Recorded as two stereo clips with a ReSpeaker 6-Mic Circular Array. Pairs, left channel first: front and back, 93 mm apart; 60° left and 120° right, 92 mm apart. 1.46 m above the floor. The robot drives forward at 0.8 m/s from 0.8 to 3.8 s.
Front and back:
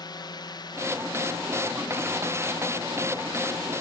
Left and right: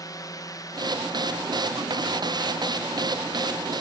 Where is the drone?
20° left.